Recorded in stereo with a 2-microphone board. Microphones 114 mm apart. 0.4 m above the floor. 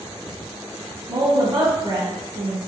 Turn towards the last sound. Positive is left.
turn(degrees=-45)  # may be behind; listen again after turning